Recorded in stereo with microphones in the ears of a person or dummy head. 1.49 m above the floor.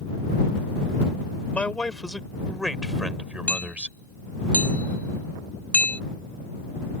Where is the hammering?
Centre (ahead or behind).